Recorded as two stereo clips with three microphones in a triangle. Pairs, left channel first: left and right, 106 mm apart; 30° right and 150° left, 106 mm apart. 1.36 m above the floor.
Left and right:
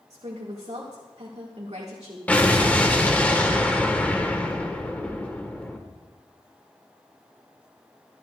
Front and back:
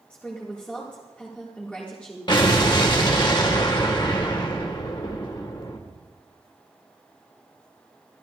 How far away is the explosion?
About 1.3 m.